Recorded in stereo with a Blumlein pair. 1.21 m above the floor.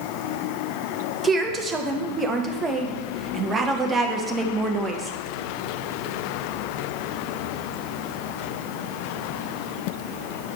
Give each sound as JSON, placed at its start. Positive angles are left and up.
{"t": 1.2, "sound": "a woman speaking", "azimuth_deg": -15, "distance_m": 1.2}